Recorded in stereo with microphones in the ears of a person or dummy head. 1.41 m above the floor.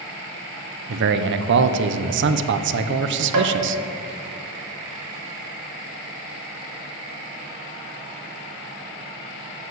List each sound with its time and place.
0.9 s a man speaking: 55° right (ahead or behind), 0.8 m
3.3 s tapping: 85° right, 2.5 m